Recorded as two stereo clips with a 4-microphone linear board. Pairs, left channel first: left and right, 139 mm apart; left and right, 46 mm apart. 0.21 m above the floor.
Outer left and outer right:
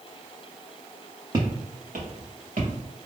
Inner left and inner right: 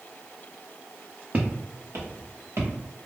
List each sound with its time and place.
1.3 s footsteps: 35° right (ahead or behind), 0.8 m; by 2.7 s 70° right (ahead or behind), 1.6 m